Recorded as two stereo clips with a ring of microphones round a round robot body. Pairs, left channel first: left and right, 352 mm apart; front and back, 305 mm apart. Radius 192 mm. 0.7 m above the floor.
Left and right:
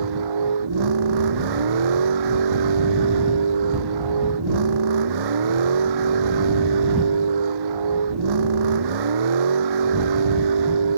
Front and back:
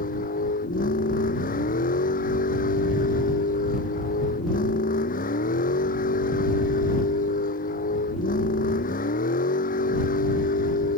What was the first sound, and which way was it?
A vehicle, 70° right.